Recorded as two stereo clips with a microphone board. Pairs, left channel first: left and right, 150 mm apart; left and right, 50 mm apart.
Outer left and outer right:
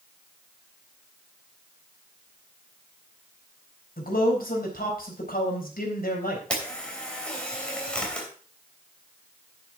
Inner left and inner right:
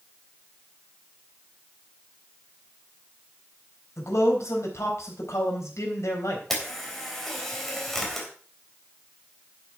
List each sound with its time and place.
4.0 s a man speaking: 80° left, 4 m
6.5 s a camera shutter: 5° left (ahead or behind), 3 m